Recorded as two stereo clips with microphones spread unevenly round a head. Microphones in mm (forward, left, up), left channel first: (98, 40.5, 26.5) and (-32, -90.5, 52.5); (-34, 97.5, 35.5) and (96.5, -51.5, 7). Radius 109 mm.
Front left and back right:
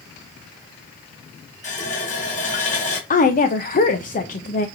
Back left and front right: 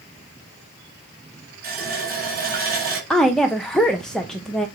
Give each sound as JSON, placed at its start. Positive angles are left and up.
{"t": 1.6, "sound": "a running tap", "azimuth_deg": -5, "distance_m": 4.5}
{"t": 3.1, "sound": "a woman speaking", "azimuth_deg": 35, "distance_m": 1.0}